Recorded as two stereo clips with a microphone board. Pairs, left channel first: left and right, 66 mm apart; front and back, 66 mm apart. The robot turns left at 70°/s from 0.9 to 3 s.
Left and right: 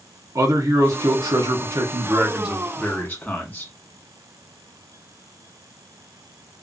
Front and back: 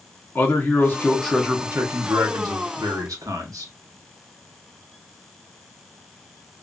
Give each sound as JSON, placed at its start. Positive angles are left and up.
{"t": 0.3, "sound": "a man speaking", "azimuth_deg": -60, "distance_m": 1.2}